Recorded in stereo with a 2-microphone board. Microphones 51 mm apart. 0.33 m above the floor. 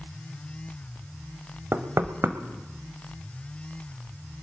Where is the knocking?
55° right (ahead or behind), 1.0 m.